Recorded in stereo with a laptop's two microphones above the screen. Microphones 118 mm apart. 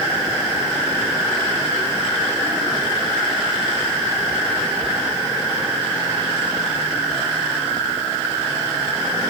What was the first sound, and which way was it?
Only background noise.